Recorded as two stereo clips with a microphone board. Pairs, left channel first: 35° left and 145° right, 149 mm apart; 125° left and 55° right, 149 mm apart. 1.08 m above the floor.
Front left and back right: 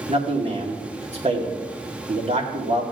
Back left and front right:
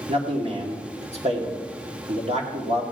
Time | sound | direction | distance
0.1 | a man speaking | 100° right | 2 m